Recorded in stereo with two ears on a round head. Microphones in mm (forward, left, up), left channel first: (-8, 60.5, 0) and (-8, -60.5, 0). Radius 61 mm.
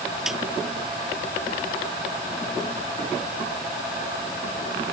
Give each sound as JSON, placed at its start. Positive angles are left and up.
{"t": 0.3, "sound": "a snare drum", "side_deg": 0}